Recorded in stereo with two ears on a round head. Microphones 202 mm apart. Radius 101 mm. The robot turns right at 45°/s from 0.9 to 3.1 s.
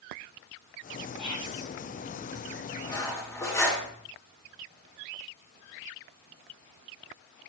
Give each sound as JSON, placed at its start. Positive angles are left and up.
{"t": 1.2, "sound": "whispering", "side_deg": 0, "distance_m": 3.5}
{"t": 2.8, "sound": "cutlery clinking", "side_deg": 25, "distance_m": 1.5}